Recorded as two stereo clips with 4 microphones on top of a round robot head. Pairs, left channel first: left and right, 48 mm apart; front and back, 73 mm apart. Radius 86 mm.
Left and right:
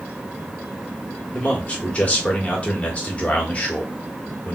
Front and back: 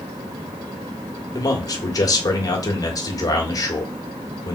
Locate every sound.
1.3 s a man speaking: 30° left, 1.4 m